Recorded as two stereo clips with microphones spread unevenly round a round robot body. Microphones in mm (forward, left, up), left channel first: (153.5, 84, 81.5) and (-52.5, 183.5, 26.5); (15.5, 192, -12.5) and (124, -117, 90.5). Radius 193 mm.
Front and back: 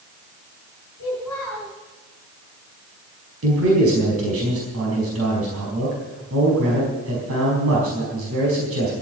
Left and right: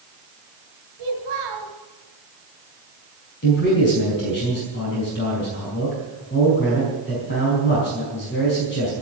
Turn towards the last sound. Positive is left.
turn(degrees=165)